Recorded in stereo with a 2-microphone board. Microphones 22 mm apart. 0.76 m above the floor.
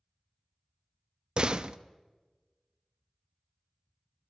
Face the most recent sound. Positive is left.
turn(degrees=-40)  # may be behind; listen again after turning